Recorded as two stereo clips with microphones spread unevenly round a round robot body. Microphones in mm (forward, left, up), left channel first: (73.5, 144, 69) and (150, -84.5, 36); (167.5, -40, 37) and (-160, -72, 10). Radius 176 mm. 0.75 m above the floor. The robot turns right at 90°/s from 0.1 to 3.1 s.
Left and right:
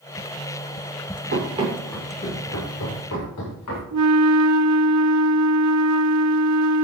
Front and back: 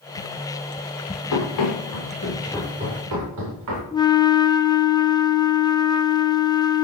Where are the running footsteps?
30° right, 7 m; by 3.8 s 140° left, 8 m.